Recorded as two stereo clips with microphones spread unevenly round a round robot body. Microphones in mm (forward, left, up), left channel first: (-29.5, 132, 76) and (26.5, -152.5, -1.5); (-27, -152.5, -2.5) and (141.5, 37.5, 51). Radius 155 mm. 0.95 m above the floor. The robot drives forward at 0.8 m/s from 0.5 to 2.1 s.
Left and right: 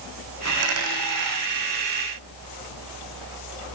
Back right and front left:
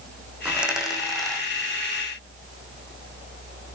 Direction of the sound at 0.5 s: 35° right.